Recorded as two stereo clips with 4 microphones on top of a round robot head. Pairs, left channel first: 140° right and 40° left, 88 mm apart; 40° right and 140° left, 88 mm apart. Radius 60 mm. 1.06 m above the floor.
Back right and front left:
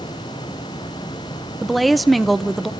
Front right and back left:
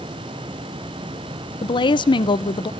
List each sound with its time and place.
1.6 s a woman speaking: 50° right, 0.7 m